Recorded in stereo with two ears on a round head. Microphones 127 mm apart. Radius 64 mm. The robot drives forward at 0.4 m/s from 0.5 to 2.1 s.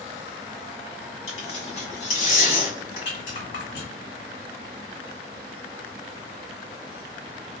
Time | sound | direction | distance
1.3 | tearing paper | 45° left (ahead or behind) | 1.7 m
3.0 | a rattle | 75° left (ahead or behind) | 2.0 m